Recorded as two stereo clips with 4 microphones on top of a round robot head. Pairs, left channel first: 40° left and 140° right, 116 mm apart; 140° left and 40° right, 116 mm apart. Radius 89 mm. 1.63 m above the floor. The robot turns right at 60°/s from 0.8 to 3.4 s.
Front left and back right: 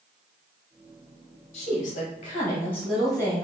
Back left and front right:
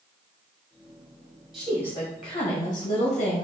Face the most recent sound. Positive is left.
turn(degrees=160)